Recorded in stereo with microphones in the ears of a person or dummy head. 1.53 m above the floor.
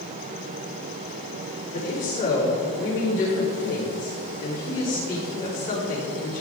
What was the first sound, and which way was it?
A woman speaking, 45° left (ahead or behind).